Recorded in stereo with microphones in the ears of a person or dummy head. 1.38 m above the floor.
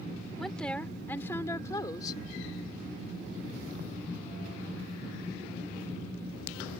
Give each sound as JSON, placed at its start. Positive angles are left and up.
{"t": 0.4, "sound": "a woman speaking", "side_deg": 10}